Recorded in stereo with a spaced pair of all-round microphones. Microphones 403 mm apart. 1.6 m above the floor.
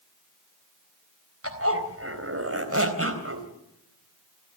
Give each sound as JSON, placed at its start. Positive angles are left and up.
{"t": 1.4, "sound": "a zipper", "side_deg": -35, "distance_m": 3.5}